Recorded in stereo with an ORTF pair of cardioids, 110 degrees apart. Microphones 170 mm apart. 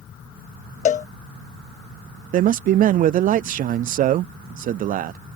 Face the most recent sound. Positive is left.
turn(degrees=-50)